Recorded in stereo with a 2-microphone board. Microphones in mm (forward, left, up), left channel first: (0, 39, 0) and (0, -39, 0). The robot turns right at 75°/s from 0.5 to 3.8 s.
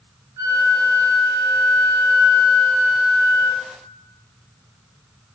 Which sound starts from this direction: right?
A flute, at 0.4 s.